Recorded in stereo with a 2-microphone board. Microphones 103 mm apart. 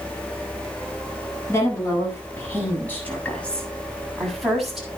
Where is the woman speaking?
30° left (ahead or behind), 8 m; by 4.9 s centre (ahead or behind), 7 m.